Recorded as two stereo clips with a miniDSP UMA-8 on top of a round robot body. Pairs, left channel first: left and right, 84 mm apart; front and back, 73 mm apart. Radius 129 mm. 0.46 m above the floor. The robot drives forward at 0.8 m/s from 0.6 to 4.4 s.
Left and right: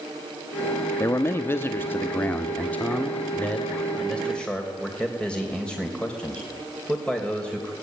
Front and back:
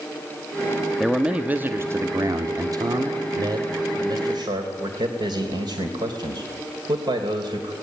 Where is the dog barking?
No dog barking in this recording.